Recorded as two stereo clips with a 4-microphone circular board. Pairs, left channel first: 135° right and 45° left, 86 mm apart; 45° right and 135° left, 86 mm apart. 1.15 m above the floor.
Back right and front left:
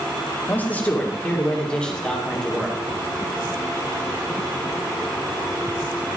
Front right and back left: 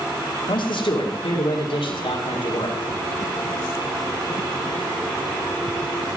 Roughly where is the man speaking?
Ahead right.